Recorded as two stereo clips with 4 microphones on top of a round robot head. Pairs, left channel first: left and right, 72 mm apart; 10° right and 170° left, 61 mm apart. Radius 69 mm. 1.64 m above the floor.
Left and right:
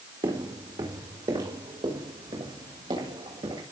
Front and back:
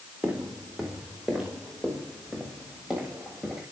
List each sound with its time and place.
0.2 s footsteps: 110° right, 4.5 m; by 3.6 s 105° right, 8.5 m